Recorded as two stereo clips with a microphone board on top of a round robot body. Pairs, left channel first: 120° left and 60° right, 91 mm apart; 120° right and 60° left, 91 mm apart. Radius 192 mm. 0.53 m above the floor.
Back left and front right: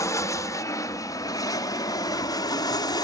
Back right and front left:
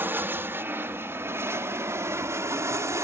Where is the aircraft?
110° left; by 3.1 s 105° left.